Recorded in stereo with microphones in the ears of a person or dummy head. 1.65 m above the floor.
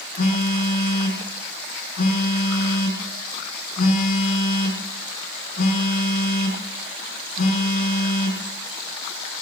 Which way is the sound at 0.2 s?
55° left (ahead or behind).